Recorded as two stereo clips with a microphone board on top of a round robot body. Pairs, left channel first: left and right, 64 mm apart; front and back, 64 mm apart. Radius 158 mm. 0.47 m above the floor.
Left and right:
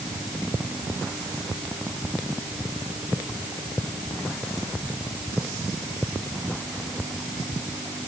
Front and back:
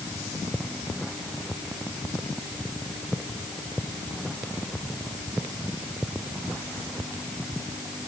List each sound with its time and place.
Only background noise.